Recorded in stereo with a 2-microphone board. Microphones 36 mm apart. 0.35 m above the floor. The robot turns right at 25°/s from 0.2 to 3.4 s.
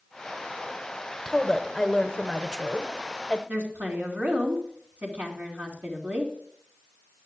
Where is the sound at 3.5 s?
70° right (ahead or behind), 3.5 m.